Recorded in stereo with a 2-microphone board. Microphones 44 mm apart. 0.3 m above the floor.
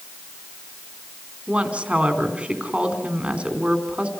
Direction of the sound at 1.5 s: 25° right (ahead or behind).